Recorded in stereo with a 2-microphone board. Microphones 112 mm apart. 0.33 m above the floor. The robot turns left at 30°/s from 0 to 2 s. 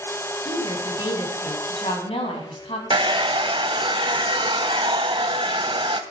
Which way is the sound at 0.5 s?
135° left.